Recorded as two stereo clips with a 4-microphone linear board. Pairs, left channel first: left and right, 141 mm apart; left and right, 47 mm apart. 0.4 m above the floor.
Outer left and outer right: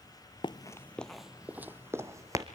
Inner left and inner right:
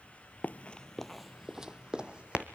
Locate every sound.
0.4 s running footsteps: 40° left (ahead or behind), 0.5 m; by 2.5 s 25° right (ahead or behind), 1.3 m